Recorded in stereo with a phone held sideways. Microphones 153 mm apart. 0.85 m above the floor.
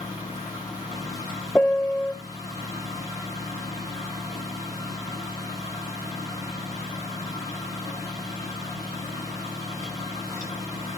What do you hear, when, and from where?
0.0 s a fan: 20° left (ahead or behind), 9 m
1.6 s a piano: 5° left (ahead or behind), 0.6 m